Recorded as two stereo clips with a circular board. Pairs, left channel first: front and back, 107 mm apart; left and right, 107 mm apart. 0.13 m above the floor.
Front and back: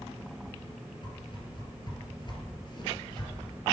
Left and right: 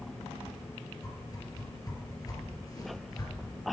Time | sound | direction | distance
1.0 | a whoosh | 40° left | 3 m